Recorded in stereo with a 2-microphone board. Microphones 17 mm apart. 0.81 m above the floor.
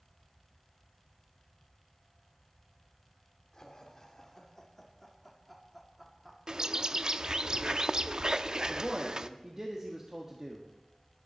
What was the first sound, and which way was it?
Laughter, 35° left (ahead or behind).